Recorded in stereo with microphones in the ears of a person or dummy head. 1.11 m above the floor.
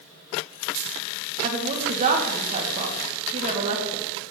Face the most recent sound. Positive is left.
turn(degrees=-35)  # may be behind; listen again after turning